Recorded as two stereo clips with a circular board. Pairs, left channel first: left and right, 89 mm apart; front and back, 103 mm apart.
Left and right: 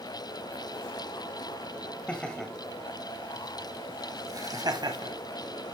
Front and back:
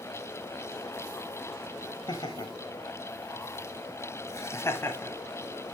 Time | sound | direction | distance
2.1 | laughter | 15° left | 1.3 m